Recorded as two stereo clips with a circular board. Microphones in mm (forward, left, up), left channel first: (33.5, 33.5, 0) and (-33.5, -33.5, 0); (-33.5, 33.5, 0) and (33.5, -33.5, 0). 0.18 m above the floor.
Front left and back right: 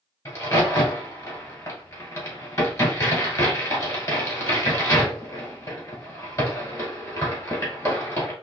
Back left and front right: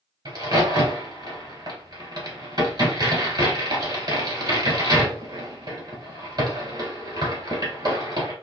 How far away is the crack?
About 1.9 m.